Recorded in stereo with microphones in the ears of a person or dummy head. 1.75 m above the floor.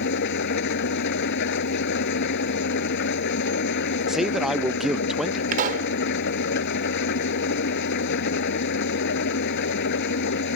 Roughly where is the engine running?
Left.